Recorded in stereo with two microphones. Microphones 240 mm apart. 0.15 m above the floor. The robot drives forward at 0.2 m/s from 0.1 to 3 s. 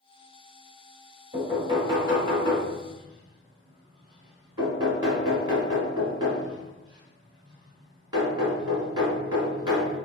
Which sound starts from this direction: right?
Knocking, at 1.3 s.